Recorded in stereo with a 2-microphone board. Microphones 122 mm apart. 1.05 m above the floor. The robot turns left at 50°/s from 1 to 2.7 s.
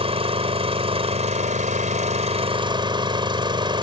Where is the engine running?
55° right; by 3.8 s 140° right.